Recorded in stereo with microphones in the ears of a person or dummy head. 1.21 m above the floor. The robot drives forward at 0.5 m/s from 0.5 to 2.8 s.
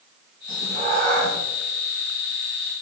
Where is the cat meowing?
45° right (ahead or behind), 2 m; by 1.4 s 40° right (ahead or behind), 2.5 m.